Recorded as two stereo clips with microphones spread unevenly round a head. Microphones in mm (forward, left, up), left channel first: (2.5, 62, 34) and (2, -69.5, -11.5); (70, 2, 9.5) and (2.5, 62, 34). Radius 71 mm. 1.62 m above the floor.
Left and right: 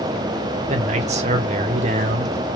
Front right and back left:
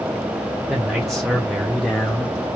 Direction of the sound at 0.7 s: 140° right.